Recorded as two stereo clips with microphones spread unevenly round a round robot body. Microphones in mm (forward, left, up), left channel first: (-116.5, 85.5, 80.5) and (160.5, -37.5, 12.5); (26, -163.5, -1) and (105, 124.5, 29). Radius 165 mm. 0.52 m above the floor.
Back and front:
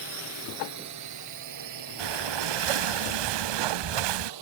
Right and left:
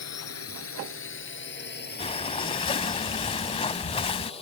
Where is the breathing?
30° right.